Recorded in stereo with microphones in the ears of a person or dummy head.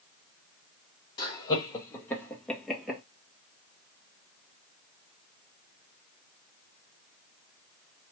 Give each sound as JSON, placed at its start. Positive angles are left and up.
{"t": 1.2, "sound": "laughter", "side_deg": 25, "distance_m": 2.0}